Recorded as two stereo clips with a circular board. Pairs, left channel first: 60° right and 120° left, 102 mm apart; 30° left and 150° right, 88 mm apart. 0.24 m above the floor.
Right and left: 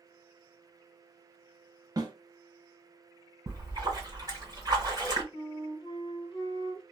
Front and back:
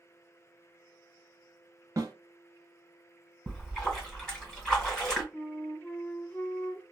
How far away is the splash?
About 1.6 m.